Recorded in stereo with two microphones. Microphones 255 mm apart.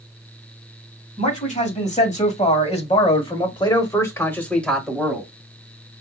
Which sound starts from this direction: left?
A man speaking, at 1.2 s.